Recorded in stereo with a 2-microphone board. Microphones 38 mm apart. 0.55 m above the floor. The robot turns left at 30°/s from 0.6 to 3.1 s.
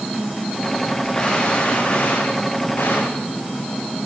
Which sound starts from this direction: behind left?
A gunshot, at 1.1 s.